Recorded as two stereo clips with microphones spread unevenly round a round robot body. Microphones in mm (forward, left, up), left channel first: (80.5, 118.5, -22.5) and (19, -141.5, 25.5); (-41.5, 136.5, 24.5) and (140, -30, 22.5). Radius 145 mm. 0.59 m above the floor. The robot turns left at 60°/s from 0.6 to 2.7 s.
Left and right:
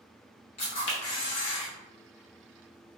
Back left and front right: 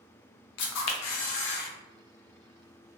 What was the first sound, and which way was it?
A camera shutter, 145° left.